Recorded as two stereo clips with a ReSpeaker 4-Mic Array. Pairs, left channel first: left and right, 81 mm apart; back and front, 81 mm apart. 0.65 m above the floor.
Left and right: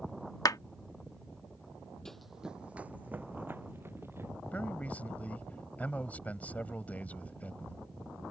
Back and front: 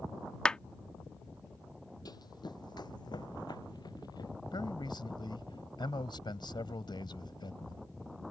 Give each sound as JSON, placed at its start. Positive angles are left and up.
{"t": 0.5, "sound": "a clap", "azimuth_deg": 105}
{"t": 2.0, "sound": "running footsteps", "azimuth_deg": 170}
{"t": 4.5, "sound": "a man speaking", "azimuth_deg": 160}